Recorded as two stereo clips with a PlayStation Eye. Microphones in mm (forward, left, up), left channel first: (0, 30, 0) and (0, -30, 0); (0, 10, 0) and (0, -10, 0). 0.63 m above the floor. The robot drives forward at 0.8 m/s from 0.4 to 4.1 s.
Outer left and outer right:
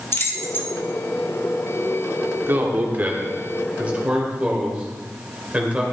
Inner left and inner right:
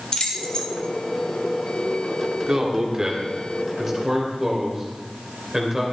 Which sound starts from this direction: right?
A man speaking, at 2.5 s.